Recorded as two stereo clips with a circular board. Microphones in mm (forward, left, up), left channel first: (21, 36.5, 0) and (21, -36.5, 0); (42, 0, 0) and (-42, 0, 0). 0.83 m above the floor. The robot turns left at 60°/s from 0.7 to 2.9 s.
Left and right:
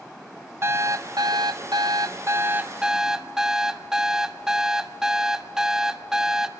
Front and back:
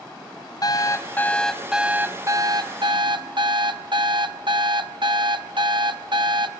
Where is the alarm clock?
35° right, 0.6 m; by 6.5 s 170° right, 0.6 m.